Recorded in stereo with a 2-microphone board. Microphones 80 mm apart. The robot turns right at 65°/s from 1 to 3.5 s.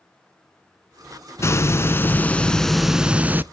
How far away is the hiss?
About 0.5 m.